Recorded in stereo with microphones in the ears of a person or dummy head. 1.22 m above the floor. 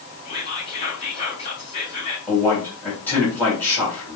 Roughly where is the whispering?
Left.